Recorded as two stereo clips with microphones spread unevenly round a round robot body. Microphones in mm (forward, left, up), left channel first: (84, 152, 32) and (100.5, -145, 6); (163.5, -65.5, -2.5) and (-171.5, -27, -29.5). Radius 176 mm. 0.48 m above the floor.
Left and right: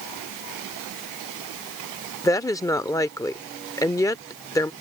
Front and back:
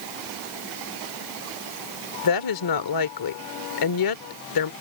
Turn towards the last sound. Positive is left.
turn(degrees=10)